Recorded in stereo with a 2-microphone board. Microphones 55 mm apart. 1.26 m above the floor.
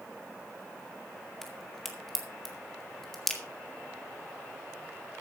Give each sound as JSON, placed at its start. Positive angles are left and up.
{"t": 1.4, "sound": "a crack", "side_deg": 5, "distance_m": 2.0}